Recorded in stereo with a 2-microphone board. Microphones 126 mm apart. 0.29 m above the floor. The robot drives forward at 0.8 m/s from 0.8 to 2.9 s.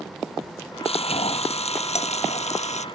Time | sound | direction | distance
0.8 | frying | 55° left (ahead or behind) | ?